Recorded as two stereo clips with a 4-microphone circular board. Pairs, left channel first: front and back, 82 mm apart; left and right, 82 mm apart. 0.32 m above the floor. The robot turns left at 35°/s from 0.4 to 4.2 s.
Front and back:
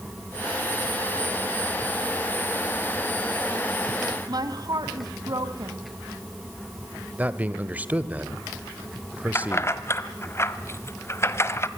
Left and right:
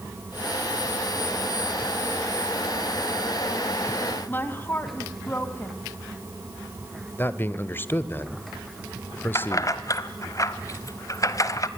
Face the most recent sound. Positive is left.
turn(degrees=50)